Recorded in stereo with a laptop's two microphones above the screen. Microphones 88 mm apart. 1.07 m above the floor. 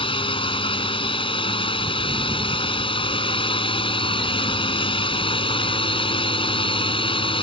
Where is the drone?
80° left.